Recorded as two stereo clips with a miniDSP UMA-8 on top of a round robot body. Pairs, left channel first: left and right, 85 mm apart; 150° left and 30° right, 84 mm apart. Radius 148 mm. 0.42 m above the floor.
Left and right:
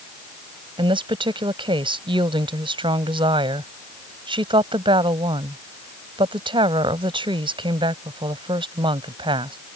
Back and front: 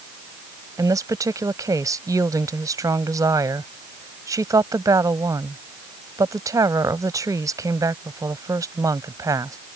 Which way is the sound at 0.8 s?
80° right.